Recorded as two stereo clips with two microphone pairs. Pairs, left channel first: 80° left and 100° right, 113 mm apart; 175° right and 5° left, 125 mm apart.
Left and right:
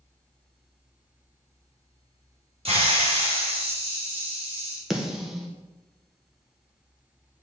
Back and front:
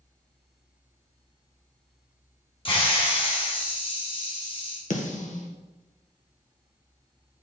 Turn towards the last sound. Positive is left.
turn(degrees=175)